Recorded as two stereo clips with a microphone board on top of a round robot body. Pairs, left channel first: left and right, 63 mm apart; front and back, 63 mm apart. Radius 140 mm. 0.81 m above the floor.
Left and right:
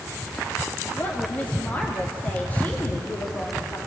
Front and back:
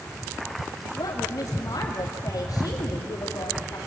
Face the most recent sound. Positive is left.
turn(degrees=30)